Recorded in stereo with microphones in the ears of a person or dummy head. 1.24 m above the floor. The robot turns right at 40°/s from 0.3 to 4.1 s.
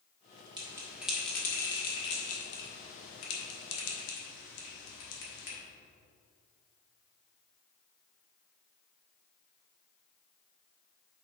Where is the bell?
25° right (ahead or behind), 1.9 m; by 5.6 s 60° left (ahead or behind), 1.9 m.